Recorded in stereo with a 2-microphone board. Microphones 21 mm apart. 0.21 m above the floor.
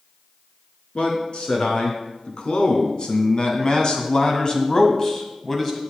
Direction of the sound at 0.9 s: 55° left (ahead or behind).